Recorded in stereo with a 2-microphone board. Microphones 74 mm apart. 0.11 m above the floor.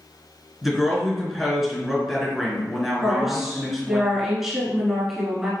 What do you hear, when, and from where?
0.6 s a woman speaking: 5° right (ahead or behind), 1.3 m
3.0 s a woman speaking: 5° right (ahead or behind), 1.3 m